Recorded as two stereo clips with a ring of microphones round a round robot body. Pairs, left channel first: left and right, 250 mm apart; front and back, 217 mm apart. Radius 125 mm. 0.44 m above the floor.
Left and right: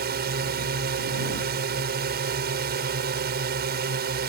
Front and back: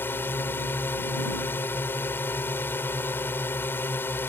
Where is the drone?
75° right.